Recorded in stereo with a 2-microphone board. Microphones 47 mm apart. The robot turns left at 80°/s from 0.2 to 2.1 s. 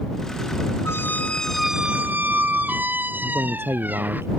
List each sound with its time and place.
0.8 s a squeak: 60° left; by 4.2 s 40° right
3.2 s a man speaking: 65° right (ahead or behind)